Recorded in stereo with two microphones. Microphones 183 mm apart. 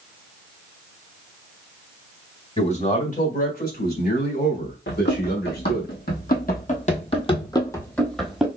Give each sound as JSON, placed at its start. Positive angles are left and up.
{"t": 2.6, "sound": "a man speaking", "side_deg": 35, "distance_m": 1.7}
{"t": 4.9, "sound": "running footsteps", "side_deg": 75, "distance_m": 1.7}